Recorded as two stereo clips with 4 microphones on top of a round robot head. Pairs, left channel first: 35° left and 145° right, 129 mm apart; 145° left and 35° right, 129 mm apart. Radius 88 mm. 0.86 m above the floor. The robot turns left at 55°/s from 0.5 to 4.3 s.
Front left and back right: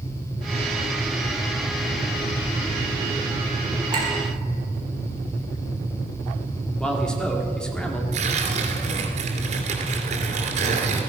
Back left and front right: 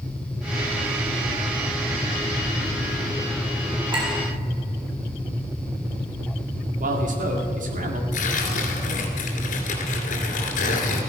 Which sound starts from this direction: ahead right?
A man speaking, at 6.8 s.